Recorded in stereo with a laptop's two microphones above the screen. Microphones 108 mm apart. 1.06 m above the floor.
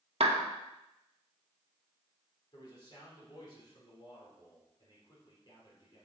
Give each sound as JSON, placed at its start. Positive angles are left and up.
{"t": 0.2, "sound": "a clap", "side_deg": -65, "distance_m": 1.1}
{"t": 2.5, "sound": "a man speaking", "side_deg": 45, "distance_m": 3.5}